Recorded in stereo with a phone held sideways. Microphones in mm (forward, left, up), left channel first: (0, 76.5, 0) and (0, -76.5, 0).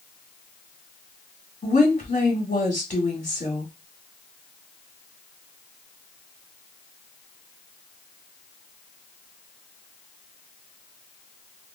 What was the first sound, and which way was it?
A woman speaking, 50° left (ahead or behind).